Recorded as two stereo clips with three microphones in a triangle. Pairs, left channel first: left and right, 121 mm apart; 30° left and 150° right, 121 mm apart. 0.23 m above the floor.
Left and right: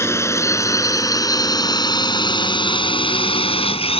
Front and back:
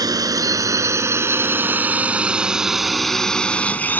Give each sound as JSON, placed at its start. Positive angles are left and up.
{"t": 0.0, "sound": "a drone", "azimuth_deg": 155}